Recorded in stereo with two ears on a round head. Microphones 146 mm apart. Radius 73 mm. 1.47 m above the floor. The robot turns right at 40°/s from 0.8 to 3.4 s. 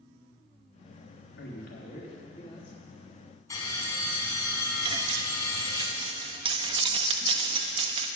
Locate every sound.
1.4 s a man speaking: 105° left, 3.5 m; by 2.8 s 160° left, 3.5 m
3.5 s a bell: 20° left (ahead or behind), 4 m
4.8 s cutlery clinking: 30° right (ahead or behind), 0.9 m